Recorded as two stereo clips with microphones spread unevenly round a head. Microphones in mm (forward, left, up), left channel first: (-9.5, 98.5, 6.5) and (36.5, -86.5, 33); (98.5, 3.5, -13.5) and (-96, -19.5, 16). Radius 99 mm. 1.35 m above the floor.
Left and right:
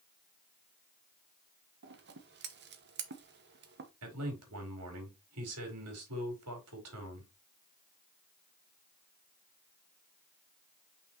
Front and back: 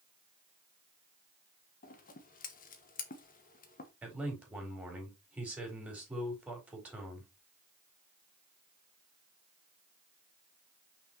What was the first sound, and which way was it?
Scissors, 40° right.